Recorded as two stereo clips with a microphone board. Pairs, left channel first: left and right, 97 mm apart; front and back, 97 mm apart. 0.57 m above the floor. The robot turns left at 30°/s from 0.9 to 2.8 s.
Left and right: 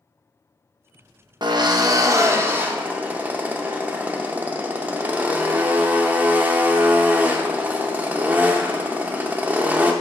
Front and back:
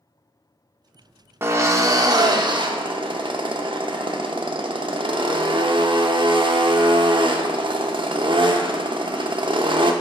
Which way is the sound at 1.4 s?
120° right.